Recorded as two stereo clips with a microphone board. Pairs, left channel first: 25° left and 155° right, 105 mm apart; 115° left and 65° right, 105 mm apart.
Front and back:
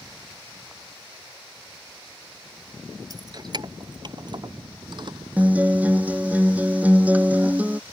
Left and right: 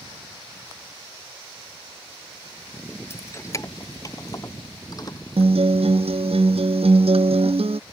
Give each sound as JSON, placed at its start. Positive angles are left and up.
{"t": 3.1, "sound": "keys jangling", "azimuth_deg": 170}
{"t": 5.4, "sound": "a guitar", "azimuth_deg": -80}